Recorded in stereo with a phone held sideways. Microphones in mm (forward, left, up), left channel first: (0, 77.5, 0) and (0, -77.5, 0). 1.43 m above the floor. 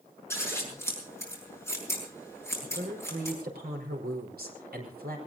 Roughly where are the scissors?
Centre.